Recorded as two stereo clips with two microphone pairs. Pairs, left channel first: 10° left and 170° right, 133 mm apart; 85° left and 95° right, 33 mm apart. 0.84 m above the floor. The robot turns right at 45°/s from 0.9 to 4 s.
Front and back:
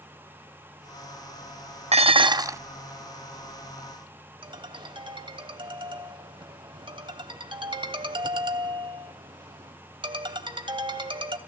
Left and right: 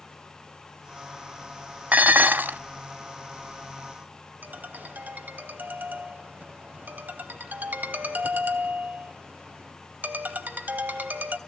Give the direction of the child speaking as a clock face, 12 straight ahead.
I don't hear a child speaking.